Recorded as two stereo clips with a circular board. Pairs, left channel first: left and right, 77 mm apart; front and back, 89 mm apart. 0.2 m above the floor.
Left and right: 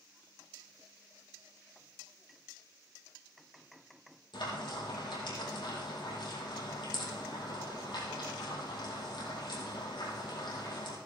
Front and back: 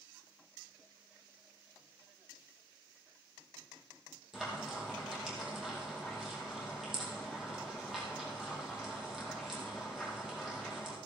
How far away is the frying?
About 4.5 m.